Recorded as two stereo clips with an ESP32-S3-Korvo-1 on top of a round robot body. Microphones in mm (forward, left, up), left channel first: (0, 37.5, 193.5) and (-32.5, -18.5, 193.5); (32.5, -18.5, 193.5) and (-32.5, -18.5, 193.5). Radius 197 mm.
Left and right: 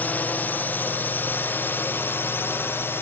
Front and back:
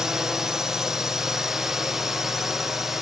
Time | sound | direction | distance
0.0 | a drone | 100° left | ?